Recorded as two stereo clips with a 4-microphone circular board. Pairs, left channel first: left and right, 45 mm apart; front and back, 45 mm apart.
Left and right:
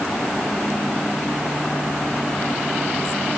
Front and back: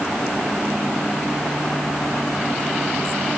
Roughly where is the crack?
No crack in this recording.